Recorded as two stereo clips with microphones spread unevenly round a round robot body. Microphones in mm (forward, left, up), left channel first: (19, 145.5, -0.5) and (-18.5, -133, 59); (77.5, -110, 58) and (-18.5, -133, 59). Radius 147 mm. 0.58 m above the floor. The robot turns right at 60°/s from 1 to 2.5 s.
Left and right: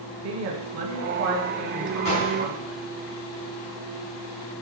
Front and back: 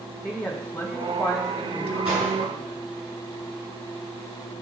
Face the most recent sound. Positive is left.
turn(degrees=175)